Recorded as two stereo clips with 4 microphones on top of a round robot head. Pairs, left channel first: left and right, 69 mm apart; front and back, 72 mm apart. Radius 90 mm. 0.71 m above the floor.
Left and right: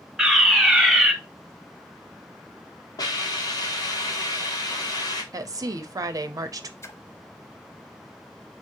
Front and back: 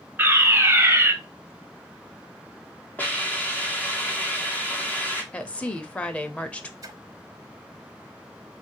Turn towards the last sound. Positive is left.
turn(degrees=140)